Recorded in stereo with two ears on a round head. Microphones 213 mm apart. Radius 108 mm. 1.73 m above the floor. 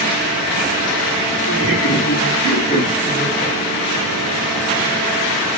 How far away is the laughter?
About 3 m.